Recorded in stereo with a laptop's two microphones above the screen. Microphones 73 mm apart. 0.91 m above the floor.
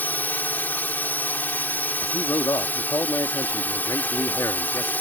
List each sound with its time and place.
0.0 s a drone: 25° left (ahead or behind)
2.0 s a man speaking: 55° left (ahead or behind)